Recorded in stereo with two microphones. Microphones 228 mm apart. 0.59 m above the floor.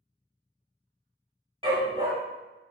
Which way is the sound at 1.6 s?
25° right (ahead or behind).